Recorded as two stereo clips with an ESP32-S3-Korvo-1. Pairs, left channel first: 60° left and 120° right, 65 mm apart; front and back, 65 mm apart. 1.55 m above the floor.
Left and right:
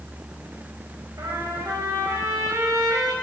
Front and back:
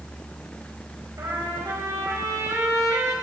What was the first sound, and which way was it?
A trumpet, 150° right.